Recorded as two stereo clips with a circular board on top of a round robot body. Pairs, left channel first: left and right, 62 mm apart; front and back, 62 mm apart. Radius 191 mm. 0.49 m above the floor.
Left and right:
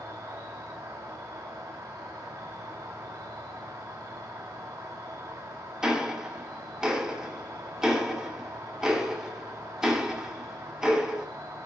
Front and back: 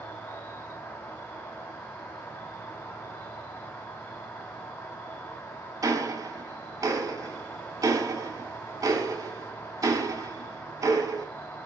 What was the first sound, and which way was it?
An insect, 65° right.